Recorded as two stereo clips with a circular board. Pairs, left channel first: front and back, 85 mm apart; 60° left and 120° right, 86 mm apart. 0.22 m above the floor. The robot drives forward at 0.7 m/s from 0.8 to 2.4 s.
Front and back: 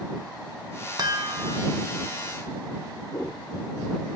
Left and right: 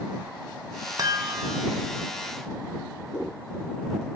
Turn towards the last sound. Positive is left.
turn(degrees=-90)